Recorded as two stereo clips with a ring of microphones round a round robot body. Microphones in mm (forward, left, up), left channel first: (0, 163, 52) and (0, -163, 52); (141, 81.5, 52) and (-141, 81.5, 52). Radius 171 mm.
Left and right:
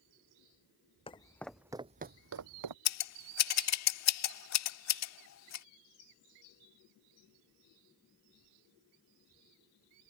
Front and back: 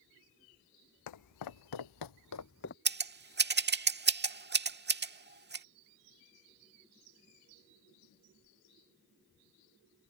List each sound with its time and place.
1.1 s footsteps: 15° left; by 2.8 s 60° right
2.9 s scissors: 130° left